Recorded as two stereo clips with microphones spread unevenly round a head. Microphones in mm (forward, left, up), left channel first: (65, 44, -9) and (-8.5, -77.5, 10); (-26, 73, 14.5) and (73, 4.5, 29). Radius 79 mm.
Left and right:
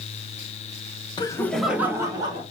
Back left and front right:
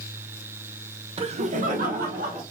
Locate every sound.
1.2 s laughter: 5° left, 0.9 m; by 2.4 s 60° right, 1.8 m